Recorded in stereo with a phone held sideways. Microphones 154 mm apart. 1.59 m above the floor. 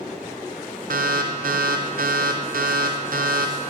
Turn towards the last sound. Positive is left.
turn(degrees=-65)  # may be behind; listen again after turning